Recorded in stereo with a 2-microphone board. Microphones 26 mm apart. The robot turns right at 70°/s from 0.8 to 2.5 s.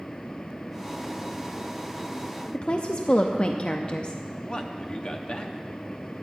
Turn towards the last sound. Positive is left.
turn(degrees=40)  # may be behind; listen again after turning